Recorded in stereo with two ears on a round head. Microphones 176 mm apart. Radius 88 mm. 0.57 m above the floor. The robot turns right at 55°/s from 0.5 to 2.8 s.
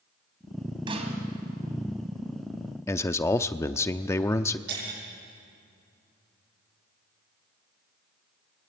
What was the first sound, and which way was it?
A snare drum, 25° right (ahead or behind).